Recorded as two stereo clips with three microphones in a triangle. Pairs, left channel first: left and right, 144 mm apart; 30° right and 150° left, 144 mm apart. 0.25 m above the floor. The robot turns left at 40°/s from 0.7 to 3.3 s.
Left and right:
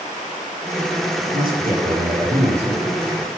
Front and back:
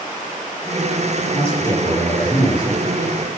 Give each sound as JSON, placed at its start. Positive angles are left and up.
{"t": 1.3, "sound": "a man speaking", "azimuth_deg": -80, "distance_m": 7.0}